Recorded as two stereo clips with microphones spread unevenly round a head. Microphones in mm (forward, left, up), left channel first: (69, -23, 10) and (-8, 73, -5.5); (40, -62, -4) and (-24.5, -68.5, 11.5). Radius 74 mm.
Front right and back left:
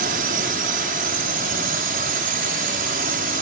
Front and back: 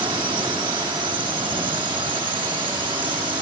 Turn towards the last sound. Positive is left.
turn(degrees=145)